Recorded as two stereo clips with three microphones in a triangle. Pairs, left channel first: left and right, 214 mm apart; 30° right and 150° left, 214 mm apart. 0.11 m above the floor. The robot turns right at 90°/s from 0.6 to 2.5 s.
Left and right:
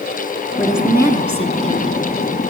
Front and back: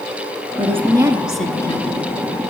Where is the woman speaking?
170° left, 1.9 m; by 2.0 s 65° right, 1.9 m.